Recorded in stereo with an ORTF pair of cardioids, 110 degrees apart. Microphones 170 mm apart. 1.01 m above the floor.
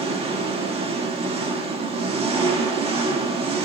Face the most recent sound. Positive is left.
turn(degrees=-35)